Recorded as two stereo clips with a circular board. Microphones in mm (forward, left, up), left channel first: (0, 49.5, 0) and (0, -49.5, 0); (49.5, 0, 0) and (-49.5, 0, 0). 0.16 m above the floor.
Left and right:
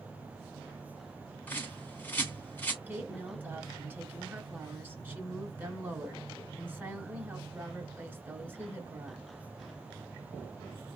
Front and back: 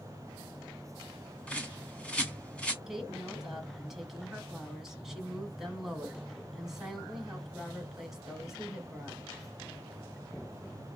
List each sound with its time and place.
1.5 s a bird: 55° left, 1.5 m
2.9 s a woman speaking: 100° right, 1.3 m